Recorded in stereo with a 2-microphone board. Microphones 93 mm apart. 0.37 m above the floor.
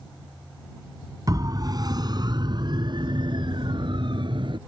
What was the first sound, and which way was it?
A siren, 40° right (ahead or behind).